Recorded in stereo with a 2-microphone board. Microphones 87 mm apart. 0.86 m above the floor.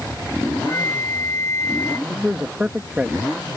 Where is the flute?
30° left (ahead or behind).